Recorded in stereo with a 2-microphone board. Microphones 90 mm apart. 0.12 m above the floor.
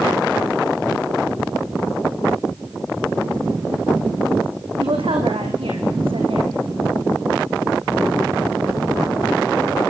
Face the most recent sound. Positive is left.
turn(degrees=-75)  # may be behind; listen again after turning